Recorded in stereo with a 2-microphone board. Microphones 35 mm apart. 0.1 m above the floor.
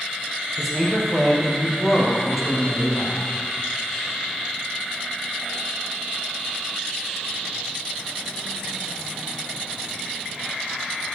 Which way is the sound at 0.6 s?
10° right (ahead or behind).